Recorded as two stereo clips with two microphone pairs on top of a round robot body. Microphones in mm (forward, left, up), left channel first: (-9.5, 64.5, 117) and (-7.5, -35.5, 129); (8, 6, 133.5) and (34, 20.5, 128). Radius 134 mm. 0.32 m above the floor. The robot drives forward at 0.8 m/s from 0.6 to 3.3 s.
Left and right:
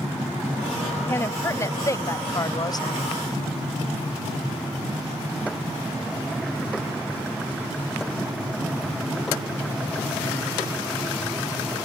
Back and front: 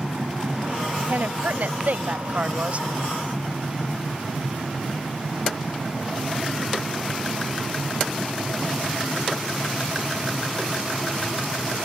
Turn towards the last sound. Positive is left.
turn(degrees=75)